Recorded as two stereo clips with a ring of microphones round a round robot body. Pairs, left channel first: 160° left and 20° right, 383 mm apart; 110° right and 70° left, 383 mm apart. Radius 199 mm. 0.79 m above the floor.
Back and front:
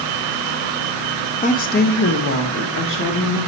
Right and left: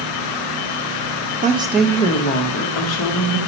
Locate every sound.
1.4 s a woman speaking: 110° left, 0.6 m; by 3.4 s 145° right, 1.1 m